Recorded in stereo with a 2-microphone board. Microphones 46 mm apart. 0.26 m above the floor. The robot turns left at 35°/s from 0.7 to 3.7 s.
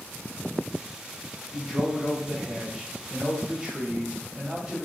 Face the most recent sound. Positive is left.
turn(degrees=-15)  # may be behind; listen again after turning